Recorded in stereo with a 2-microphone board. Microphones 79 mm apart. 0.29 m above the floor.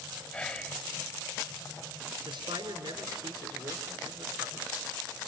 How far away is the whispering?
About 1.7 m.